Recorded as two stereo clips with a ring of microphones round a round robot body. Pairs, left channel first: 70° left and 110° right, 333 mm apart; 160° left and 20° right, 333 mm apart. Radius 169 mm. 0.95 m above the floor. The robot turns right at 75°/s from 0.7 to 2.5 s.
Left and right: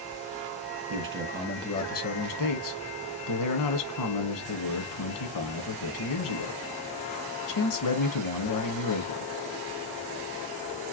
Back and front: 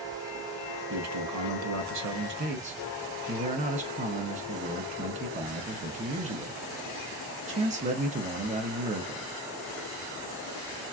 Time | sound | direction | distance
0.9 | a man speaking | 75° right | 1.2 m